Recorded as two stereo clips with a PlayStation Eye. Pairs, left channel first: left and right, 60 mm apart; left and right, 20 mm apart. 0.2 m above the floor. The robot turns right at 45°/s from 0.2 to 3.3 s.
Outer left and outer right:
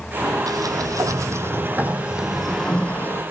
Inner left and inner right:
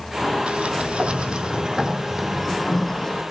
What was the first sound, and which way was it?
A sliding door, 90° right.